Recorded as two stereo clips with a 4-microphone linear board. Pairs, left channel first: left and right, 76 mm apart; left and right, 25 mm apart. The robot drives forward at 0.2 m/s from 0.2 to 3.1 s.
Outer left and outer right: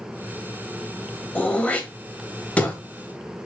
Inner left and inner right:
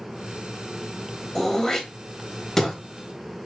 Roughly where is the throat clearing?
Centre.